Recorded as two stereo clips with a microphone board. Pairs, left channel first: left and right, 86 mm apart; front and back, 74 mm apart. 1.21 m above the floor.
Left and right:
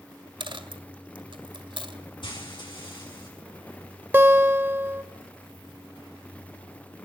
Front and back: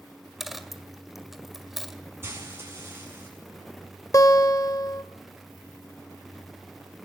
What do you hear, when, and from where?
0.4 s a dropped coin: 95° right, 1.7 m
2.2 s frying: 120° left, 8 m
4.1 s a guitar: 30° right, 1.3 m